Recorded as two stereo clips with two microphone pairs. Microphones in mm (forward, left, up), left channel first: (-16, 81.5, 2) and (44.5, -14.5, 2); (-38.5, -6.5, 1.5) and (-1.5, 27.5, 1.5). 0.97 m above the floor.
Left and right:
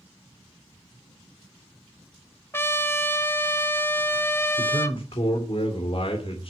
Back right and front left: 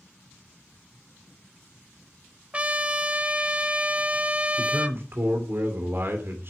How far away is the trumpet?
About 0.9 m.